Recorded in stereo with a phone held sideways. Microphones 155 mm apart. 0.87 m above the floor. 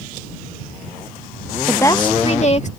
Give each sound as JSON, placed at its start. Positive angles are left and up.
{"t": 1.7, "sound": "a woman speaking", "side_deg": 5}